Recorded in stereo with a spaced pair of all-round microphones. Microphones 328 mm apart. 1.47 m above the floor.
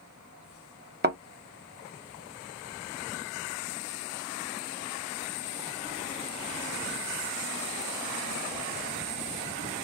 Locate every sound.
1.0 s a thud: 30° right (ahead or behind), 0.9 m